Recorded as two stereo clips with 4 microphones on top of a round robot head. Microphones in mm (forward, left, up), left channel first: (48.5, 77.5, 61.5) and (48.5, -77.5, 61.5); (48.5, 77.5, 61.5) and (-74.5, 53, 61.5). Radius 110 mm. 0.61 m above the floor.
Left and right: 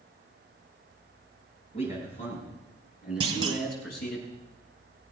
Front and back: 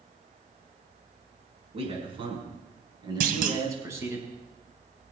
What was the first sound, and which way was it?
A man speaking, 150° left.